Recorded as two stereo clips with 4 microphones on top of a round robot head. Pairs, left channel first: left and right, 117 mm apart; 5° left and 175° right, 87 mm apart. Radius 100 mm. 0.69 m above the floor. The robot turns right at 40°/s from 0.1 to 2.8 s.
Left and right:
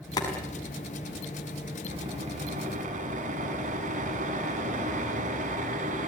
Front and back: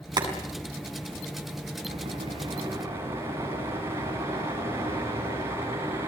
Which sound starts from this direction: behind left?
Boiling, at 0.2 s.